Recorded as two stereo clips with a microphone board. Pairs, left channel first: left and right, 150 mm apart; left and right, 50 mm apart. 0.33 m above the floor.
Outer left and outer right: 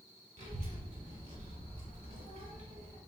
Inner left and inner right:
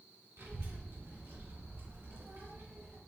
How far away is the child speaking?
About 1.9 m.